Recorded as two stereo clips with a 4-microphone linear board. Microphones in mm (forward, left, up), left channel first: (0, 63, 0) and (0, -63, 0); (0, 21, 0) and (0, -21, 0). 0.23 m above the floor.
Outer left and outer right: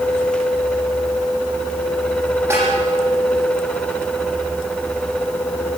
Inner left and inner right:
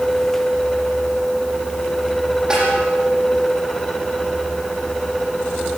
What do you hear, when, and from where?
2.5 s a snare drum: 15° right (ahead or behind), 9.5 m